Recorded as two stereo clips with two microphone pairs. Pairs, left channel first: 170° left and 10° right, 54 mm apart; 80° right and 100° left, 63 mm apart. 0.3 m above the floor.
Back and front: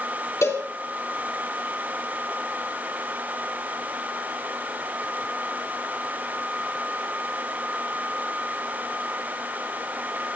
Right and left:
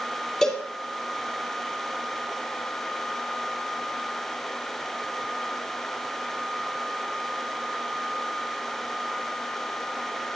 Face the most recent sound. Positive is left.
turn(degrees=-165)